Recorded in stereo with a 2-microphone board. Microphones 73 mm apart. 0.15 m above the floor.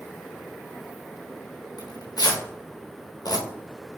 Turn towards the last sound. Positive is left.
turn(degrees=65)  # may be behind; listen again after turning